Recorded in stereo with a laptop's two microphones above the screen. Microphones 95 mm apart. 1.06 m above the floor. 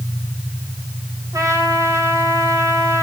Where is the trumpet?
35° right (ahead or behind), 5 m.